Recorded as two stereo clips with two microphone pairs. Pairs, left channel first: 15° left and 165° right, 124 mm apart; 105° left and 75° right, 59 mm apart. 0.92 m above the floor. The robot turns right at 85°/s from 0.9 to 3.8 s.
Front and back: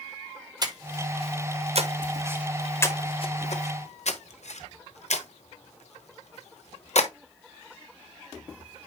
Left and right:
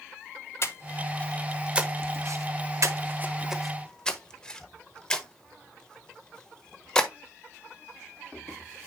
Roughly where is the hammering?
No hammering in this recording.